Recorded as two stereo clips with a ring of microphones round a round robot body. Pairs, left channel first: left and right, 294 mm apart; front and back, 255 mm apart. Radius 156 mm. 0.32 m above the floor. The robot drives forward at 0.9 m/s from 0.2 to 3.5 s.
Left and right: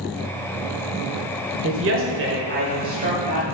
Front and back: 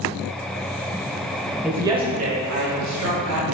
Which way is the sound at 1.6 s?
95° right.